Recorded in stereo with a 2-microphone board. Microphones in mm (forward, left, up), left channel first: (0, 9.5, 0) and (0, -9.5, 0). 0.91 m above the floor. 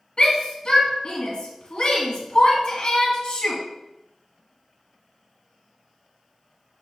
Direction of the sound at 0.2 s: 55° left (ahead or behind).